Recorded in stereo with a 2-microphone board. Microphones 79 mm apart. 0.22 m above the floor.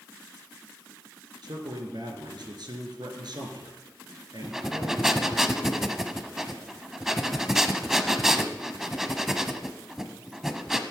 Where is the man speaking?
65° right (ahead or behind), 3.5 m.